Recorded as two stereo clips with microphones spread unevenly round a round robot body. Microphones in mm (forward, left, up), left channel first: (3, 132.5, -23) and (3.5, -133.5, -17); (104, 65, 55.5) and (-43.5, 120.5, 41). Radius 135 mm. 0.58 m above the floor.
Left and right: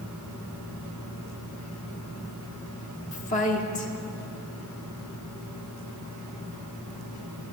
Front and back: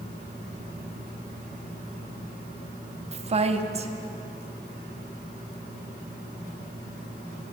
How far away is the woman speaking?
About 0.8 m.